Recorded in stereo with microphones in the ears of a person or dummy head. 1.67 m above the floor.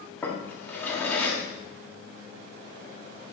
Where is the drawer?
10° left (ahead or behind), 1.9 m.